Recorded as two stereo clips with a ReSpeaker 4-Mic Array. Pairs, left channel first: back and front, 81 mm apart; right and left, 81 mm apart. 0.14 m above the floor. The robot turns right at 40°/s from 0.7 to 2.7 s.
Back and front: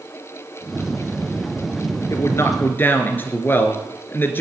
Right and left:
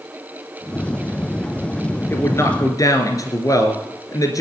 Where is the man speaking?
145° right, 2 m; by 4.4 s 120° right, 2 m.